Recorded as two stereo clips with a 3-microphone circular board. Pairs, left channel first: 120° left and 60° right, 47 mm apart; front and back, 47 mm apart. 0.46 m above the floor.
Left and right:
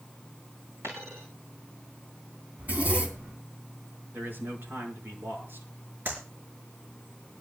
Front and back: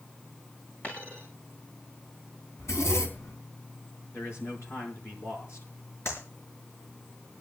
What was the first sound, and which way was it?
A dropped coin, 55° right.